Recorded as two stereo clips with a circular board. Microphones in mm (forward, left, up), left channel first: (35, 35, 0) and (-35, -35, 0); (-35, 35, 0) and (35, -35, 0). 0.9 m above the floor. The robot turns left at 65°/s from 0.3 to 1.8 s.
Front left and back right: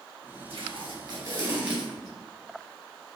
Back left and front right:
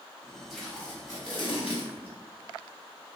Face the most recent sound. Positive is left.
turn(degrees=145)